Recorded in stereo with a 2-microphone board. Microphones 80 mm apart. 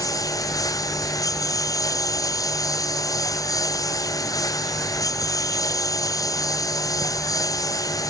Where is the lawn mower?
45° left (ahead or behind).